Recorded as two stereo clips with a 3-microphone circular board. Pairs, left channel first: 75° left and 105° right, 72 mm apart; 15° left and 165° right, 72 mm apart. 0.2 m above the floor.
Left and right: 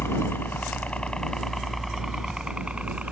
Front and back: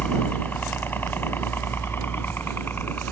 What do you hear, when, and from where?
0.0 s a helicopter: 65° left; by 3.1 s 40° right